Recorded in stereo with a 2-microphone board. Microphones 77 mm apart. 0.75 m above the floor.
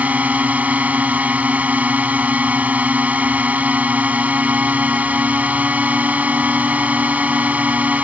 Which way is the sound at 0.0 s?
15° right (ahead or behind).